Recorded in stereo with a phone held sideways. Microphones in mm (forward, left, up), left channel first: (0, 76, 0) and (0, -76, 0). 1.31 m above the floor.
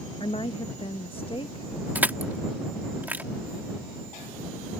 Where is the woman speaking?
35° left (ahead or behind).